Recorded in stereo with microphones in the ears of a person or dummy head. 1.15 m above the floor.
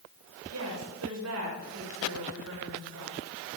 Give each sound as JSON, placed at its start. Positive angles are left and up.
{"t": 0.5, "sound": "a woman speaking", "side_deg": -85, "distance_m": 5.0}